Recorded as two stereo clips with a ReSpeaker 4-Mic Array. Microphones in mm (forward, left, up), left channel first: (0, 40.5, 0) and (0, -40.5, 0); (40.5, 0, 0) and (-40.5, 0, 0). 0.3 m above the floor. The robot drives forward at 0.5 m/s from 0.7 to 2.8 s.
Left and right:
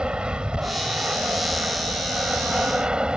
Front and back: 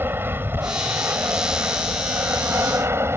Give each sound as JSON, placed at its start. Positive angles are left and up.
{"t": 0.0, "sound": "an aircraft", "azimuth_deg": -155}